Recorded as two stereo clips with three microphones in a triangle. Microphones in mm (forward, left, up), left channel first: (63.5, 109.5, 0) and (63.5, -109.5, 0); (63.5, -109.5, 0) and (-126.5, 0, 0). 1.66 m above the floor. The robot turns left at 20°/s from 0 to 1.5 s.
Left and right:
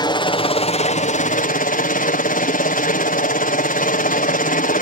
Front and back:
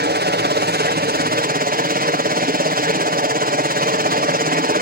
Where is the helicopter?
155° left; by 4.8 s 125° left.